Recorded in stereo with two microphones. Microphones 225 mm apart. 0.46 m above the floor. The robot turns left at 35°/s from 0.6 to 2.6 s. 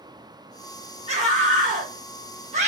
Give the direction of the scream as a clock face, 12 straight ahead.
2 o'clock.